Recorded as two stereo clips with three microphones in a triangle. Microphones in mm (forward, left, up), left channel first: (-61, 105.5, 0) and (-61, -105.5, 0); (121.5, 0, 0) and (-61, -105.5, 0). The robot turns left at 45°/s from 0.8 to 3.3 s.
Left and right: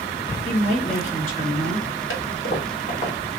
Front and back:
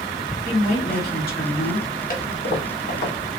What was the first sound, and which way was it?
A woman speaking, 55° left.